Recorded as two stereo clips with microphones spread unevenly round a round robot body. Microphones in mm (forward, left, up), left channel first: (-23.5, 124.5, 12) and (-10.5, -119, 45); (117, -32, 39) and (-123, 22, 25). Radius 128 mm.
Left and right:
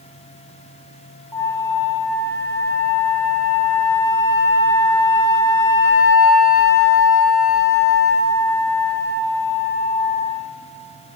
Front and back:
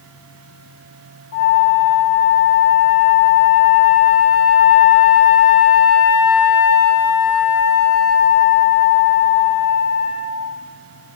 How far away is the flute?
About 1.1 m.